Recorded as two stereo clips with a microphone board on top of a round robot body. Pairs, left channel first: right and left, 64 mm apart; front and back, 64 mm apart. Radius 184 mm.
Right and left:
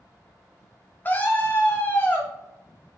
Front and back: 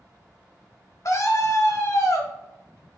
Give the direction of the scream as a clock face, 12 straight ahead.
1 o'clock.